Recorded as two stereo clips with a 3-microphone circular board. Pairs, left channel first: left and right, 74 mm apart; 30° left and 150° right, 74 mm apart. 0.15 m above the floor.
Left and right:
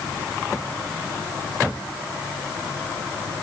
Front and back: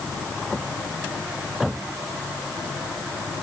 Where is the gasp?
I don't hear a gasp.